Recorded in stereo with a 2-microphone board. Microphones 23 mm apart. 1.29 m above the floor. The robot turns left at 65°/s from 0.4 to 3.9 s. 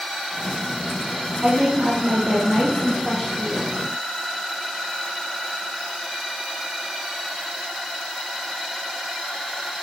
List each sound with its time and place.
1.4 s a woman speaking: 65° right, 3 m; by 3.8 s 145° left, 3 m